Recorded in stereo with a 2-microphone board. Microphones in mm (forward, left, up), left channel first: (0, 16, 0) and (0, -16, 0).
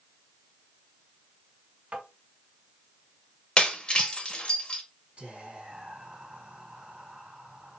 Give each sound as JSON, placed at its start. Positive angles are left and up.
{"t": 1.9, "sound": "tapping", "side_deg": -45, "distance_m": 1.8}
{"t": 3.6, "sound": "breaking glass", "side_deg": 30, "distance_m": 0.7}
{"t": 5.2, "sound": "whispering", "side_deg": -45, "distance_m": 2.0}